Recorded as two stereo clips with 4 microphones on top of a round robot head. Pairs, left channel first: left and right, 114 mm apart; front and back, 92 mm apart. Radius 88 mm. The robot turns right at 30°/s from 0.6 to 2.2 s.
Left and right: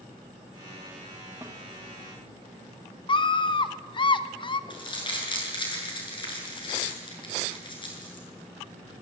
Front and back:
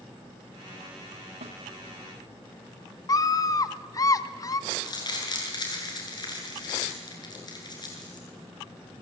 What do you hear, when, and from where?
1.4 s a snare drum: 165° right, 1.4 m; by 1.6 s 160° right, 1.4 m
3.1 s a scream: 50° left, 1.1 m
4.7 s crumpling: 45° left, 8.5 m